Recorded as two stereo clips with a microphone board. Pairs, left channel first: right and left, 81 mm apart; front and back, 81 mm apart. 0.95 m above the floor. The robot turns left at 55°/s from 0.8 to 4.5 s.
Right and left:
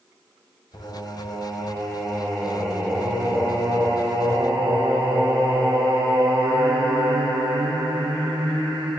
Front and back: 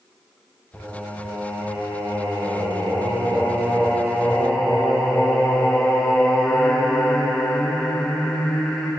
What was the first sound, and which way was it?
Singing, 80° right.